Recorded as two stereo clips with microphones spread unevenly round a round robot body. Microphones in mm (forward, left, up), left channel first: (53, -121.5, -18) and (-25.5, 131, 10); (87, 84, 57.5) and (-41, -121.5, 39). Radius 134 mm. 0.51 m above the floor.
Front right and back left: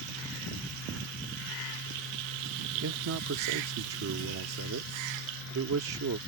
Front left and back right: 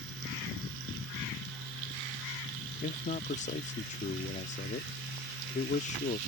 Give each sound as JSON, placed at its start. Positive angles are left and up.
{"t": 2.8, "sound": "a man speaking", "azimuth_deg": 110}